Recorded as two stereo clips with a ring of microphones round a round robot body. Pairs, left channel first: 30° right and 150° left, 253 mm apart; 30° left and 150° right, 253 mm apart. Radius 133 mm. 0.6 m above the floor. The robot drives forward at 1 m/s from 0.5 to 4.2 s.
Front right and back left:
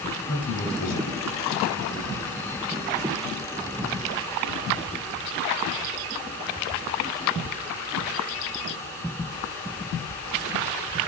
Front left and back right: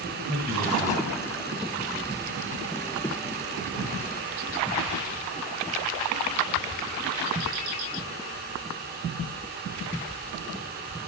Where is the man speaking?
40° right, 3 m; by 1.7 s 65° right, 2.5 m.